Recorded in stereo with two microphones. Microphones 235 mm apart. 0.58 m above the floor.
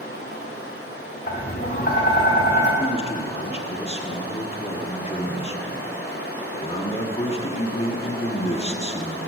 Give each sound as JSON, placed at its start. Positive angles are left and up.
{"t": 0.0, "sound": "running water", "side_deg": 70, "distance_m": 3.0}
{"t": 1.3, "sound": "tapping", "side_deg": 45, "distance_m": 2.5}
{"t": 2.8, "sound": "a man speaking", "side_deg": 25, "distance_m": 1.2}